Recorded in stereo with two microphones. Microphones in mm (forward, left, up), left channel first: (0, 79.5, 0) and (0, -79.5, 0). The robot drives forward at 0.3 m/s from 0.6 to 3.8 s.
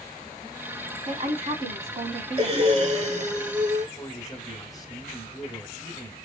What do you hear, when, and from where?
1.1 s a woman speaking: 45° right (ahead or behind), 1.8 m
2.4 s breathing: 40° right (ahead or behind), 1.1 m; by 3.9 s 60° right (ahead or behind), 0.8 m
4.0 s a man speaking: 20° left (ahead or behind), 2 m